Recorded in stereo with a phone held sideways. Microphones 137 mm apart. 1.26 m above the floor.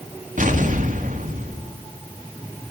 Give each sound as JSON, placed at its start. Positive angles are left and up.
{"t": 0.4, "sound": "an explosion", "side_deg": -60, "distance_m": 2.0}